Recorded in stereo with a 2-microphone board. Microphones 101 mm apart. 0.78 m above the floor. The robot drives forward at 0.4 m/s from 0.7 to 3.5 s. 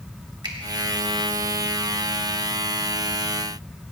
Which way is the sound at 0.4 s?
45° right (ahead or behind).